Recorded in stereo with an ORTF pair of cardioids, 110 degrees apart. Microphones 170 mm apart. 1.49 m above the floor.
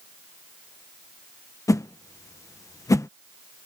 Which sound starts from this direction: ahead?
A whoosh, at 1.7 s.